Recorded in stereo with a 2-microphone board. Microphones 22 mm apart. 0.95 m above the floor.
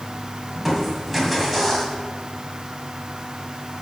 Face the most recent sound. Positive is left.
turn(degrees=0)  # may be behind; listen again after turning